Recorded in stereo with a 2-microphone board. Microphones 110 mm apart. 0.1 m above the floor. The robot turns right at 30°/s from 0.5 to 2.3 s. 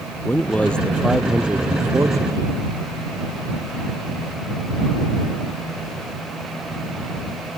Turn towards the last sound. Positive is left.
turn(degrees=-145)